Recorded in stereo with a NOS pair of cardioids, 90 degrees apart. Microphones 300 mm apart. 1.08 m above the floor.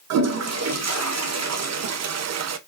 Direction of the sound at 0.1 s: 60° right.